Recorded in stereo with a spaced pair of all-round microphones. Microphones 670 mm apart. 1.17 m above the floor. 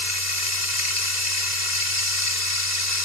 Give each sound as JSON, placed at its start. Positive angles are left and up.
{"t": 0.0, "sound": "running water", "side_deg": 85}